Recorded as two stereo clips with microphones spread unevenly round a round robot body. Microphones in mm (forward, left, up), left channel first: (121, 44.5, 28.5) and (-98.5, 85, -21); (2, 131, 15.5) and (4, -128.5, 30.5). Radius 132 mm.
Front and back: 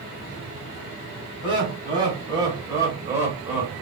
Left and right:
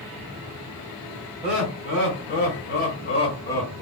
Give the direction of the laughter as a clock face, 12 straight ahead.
8 o'clock.